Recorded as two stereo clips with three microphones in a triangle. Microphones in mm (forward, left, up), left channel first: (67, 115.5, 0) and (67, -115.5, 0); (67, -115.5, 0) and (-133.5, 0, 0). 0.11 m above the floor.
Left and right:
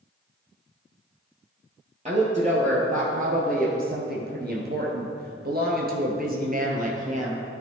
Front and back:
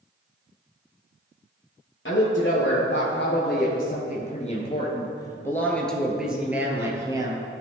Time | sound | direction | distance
2.0 | a woman speaking | 35° right | 2 m